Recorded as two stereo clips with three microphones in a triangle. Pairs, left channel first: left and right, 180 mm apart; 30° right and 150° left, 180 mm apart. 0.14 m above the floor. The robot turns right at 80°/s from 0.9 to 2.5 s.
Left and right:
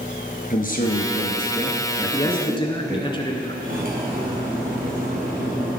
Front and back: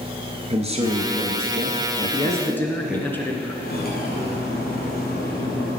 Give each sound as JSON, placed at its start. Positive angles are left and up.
{"t": 0.5, "sound": "a man speaking", "azimuth_deg": 105, "distance_m": 1.8}
{"t": 2.0, "sound": "a man speaking", "azimuth_deg": 5, "distance_m": 1.4}
{"t": 3.6, "sound": "cutlery clinking", "azimuth_deg": -55, "distance_m": 2.5}